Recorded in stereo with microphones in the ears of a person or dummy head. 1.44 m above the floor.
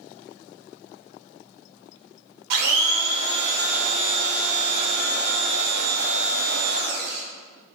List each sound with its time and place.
2.5 s a blender: 65° right (ahead or behind), 1.0 m